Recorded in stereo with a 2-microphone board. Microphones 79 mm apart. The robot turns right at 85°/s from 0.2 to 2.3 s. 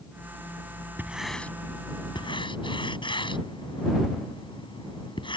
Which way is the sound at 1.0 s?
25° right (ahead or behind).